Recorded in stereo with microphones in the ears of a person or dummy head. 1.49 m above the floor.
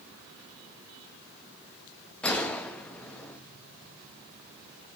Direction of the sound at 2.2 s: 5° left (ahead or behind).